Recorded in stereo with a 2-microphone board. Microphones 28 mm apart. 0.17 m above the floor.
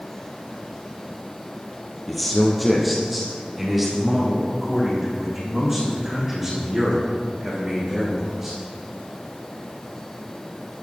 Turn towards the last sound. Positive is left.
turn(degrees=-15)  # may be behind; listen again after turning